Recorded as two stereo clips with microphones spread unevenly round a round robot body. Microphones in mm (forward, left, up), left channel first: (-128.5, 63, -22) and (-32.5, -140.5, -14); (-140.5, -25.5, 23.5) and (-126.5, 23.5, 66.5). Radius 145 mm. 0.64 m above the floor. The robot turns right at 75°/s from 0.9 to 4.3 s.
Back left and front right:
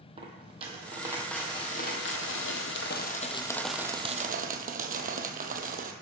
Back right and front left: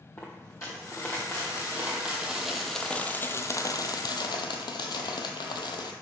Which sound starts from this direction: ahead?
A dropped coin, at 0.2 s.